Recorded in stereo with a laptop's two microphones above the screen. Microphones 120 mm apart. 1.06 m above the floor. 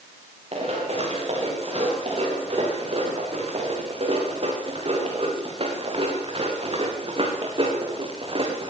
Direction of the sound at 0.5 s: 50° right (ahead or behind).